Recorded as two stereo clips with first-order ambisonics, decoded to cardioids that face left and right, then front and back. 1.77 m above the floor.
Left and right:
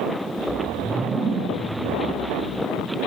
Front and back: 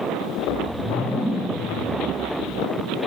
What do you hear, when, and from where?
0.4 s a whoosh: 110° right, 1.2 m